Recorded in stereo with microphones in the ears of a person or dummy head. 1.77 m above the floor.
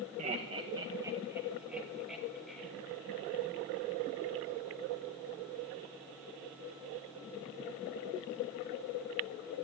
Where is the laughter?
40° right (ahead or behind), 1.3 m; by 2.7 s centre (ahead or behind), 3 m.